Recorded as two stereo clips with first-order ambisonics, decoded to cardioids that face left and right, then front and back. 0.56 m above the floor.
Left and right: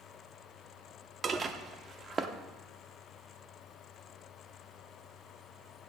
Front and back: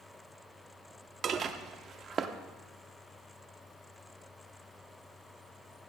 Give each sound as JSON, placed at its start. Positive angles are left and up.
{"t": 1.2, "sound": "dishes clattering", "azimuth_deg": -140, "distance_m": 0.6}